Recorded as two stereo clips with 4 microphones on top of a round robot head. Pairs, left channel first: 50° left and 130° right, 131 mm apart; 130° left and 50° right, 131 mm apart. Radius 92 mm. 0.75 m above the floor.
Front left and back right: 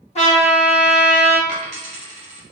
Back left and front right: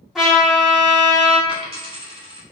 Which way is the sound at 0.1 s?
35° left.